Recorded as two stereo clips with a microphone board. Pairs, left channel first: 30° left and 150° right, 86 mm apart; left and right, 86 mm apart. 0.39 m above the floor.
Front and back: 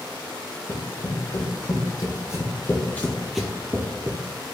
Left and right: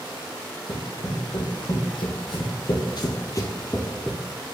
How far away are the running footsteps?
About 1.6 m.